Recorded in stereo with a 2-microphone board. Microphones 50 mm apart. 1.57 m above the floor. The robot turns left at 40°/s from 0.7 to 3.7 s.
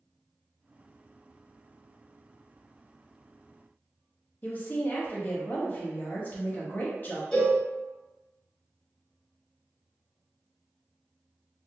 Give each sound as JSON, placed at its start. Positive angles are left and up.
{"t": 4.4, "sound": "a woman speaking", "side_deg": 40, "distance_m": 0.8}
{"t": 7.3, "sound": "a cowbell", "side_deg": 10, "distance_m": 1.1}